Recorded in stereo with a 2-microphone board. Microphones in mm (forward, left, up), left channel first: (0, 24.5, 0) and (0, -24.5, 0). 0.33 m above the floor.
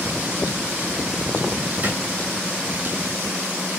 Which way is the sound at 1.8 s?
45° right (ahead or behind).